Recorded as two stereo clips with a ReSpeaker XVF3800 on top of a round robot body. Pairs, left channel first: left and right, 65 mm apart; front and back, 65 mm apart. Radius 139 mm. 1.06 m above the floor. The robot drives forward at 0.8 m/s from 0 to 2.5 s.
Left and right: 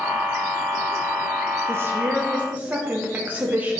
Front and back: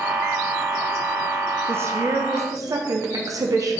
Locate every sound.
1.7 s a woman speaking: 130° right, 0.9 m; by 3.8 s 155° right, 1.4 m